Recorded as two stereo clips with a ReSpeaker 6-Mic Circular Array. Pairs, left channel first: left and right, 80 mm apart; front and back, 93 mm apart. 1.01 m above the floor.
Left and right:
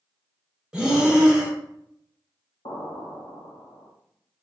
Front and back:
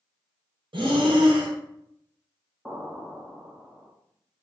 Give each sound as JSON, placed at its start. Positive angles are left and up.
{"t": 0.7, "sound": "breathing", "azimuth_deg": -165, "distance_m": 0.7}
{"t": 2.6, "sound": "an explosion", "azimuth_deg": 90, "distance_m": 0.8}